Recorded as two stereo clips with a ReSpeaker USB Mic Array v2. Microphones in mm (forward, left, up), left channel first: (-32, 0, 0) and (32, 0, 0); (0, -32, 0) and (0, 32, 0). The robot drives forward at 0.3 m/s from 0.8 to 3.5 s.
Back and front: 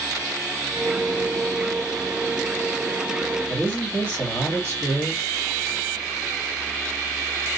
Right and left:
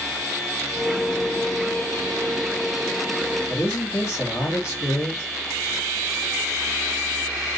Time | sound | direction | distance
3.5 | a man speaking | 130° right | 1.7 m